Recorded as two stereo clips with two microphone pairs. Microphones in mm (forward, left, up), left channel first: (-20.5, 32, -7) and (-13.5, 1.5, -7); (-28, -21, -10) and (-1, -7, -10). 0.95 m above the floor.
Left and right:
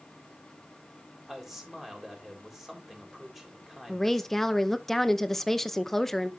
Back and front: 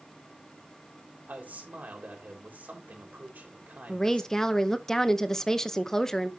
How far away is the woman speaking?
About 0.7 m.